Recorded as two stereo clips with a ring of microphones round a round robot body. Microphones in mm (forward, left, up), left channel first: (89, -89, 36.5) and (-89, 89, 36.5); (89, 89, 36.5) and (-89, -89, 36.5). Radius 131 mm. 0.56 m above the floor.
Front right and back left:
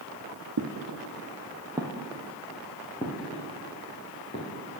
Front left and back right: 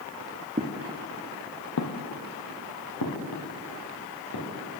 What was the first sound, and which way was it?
Footsteps, 155° left.